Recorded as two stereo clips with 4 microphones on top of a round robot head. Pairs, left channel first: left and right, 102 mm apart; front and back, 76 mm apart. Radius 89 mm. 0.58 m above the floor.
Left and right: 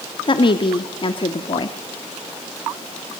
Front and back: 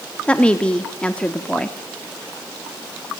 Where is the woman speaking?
70° left, 1.1 m.